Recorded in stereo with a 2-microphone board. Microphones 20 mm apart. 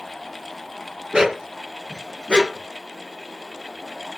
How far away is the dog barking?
About 1.6 m.